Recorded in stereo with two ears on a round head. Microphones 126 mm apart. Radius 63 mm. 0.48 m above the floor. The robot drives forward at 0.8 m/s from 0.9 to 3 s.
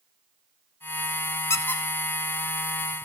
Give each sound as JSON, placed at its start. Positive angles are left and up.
{"t": 1.5, "sound": "a squeak", "side_deg": 20, "distance_m": 0.6}